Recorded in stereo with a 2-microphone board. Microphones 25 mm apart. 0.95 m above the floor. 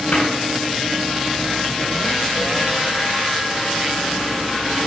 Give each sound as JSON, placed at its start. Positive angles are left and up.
{"t": 0.1, "sound": "a cupboard door", "side_deg": 75, "distance_m": 7.0}